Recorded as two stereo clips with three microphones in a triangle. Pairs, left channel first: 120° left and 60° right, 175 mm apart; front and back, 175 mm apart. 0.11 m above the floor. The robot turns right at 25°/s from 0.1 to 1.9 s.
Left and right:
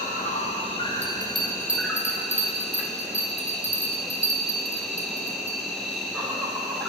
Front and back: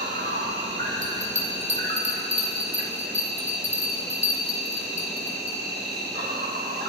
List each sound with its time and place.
0.0 s an insect: 165° left, 1.1 m; by 6.9 s 150° right, 1.1 m
1.0 s a bell: 160° right, 0.9 m; by 5.6 s 140° right, 0.9 m